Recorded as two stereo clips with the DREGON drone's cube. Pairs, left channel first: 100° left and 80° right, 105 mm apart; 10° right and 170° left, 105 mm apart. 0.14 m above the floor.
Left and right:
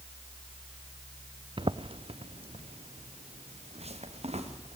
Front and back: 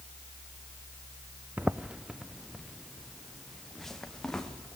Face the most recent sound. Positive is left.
turn(degrees=-95)